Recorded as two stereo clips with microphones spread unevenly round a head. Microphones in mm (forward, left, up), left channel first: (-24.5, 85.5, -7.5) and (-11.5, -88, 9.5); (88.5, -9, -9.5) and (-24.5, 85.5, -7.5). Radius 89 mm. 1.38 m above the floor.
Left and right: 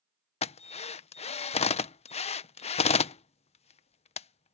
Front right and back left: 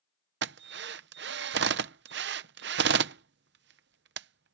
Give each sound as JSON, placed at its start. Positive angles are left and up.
{"t": 0.4, "sound": "a drill", "azimuth_deg": 150}